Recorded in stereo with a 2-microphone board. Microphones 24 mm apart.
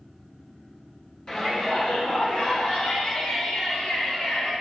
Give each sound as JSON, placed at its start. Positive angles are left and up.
{"t": 1.3, "sound": "a shout", "side_deg": 40, "distance_m": 1.8}